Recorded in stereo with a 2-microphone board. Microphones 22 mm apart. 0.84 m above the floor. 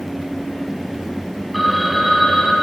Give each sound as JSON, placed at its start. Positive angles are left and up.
{"t": 1.5, "sound": "a phone ringing", "side_deg": 5, "distance_m": 5.0}